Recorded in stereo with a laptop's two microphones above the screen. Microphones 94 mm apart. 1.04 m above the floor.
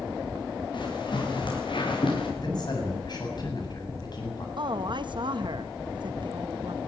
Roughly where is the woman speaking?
Right.